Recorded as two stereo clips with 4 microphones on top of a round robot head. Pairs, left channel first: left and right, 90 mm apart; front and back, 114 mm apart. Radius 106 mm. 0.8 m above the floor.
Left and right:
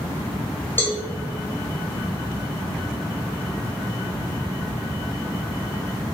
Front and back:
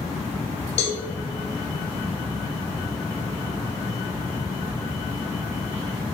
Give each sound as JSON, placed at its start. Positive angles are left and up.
{"t": 0.8, "sound": "a cowbell", "azimuth_deg": 25, "distance_m": 1.8}